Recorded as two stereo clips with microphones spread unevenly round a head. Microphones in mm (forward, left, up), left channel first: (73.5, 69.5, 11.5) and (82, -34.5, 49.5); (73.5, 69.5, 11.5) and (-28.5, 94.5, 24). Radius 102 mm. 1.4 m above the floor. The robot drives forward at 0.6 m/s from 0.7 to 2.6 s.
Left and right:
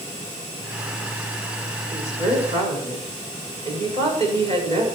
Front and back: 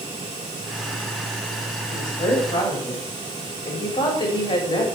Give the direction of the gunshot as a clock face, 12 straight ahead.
No gunshot in this recording.